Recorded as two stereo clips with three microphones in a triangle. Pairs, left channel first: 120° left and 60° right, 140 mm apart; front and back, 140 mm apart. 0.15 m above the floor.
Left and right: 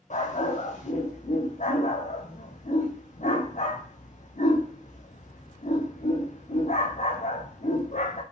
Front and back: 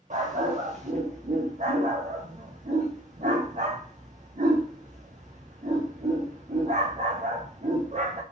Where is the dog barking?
150° left, 3.5 m.